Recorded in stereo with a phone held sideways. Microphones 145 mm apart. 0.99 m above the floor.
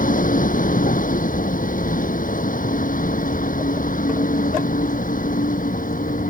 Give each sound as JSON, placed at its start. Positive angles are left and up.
{"t": 0.0, "sound": "a vehicle", "side_deg": 80}